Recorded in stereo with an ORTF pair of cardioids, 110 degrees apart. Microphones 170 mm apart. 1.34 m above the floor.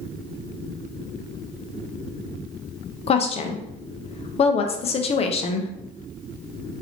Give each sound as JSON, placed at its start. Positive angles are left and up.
{"t": 3.1, "sound": "a woman speaking", "azimuth_deg": 35, "distance_m": 0.6}